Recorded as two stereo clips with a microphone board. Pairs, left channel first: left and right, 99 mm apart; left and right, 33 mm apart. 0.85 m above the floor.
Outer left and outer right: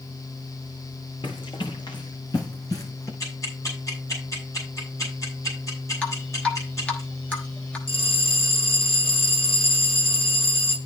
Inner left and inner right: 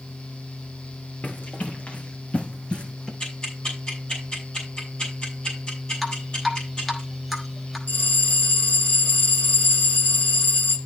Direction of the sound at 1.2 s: 60° left (ahead or behind).